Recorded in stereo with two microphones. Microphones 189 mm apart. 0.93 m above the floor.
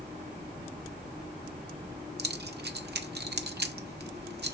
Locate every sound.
2.2 s keys jangling: 70° right (ahead or behind), 0.6 m